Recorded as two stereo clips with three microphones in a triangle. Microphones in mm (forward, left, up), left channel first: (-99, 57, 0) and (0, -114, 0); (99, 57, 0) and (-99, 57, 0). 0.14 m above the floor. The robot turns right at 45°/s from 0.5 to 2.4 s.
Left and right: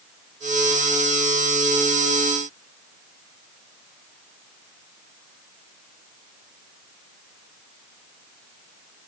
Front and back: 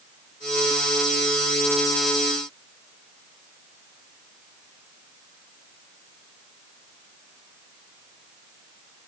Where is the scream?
I don't hear a scream.